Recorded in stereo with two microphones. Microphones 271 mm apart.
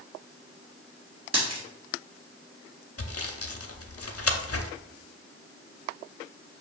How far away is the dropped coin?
About 1.7 m.